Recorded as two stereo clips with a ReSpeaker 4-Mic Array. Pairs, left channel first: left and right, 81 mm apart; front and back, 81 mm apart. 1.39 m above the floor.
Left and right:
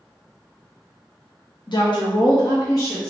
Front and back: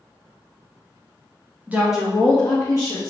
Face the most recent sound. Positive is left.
turn(degrees=40)